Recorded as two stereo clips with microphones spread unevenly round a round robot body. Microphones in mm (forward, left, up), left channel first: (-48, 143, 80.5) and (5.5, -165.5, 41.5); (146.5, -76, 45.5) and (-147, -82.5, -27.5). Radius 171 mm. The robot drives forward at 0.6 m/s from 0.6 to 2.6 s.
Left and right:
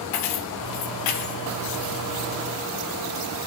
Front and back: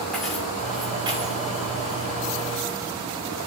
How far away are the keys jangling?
About 1.1 m.